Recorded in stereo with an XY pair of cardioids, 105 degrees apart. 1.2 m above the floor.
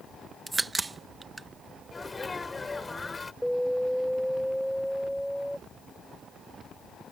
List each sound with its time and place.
0.5 s a crack: 20° right
1.9 s a sneeze: 20° left
3.4 s an alarm: straight ahead